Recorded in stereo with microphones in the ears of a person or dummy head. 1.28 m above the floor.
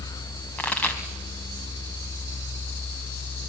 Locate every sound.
0.6 s a pop: 15° left (ahead or behind), 2.5 m